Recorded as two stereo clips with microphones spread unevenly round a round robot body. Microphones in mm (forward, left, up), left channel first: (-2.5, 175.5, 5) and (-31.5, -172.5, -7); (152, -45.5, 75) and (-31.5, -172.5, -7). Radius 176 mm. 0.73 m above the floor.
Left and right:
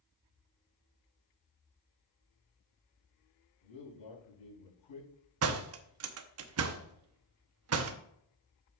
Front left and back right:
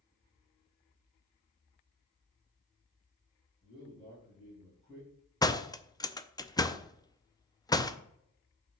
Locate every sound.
3.6 s a man speaking: 115° left, 5 m
5.4 s a door slam: 50° right, 0.8 m